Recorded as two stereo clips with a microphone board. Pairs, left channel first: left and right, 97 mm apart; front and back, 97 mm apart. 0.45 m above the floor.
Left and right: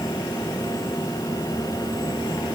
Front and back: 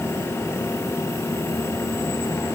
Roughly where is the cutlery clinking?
I don't hear cutlery clinking.